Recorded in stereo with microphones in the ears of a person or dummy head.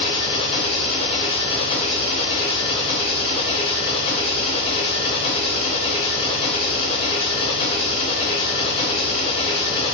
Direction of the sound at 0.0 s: 35° left (ahead or behind).